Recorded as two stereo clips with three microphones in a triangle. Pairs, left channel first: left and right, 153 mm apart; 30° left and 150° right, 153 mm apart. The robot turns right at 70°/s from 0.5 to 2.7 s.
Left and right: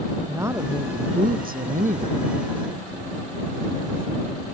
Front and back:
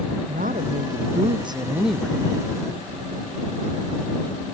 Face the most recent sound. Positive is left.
turn(degrees=-5)